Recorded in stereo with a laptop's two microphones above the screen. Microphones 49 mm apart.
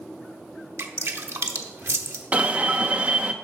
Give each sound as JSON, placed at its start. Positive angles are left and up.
{"t": 0.8, "sound": "dripping", "side_deg": -65, "distance_m": 0.9}
{"t": 2.3, "sound": "an alarm", "side_deg": -30, "distance_m": 0.6}